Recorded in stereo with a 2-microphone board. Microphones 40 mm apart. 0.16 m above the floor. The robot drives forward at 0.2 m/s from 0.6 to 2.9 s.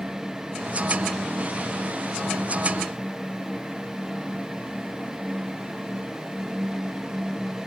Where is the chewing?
No chewing in this recording.